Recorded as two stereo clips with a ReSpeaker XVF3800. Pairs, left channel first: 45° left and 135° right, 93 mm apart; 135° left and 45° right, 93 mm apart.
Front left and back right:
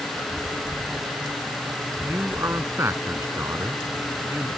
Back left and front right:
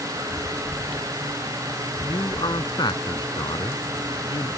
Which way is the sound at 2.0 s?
165° left.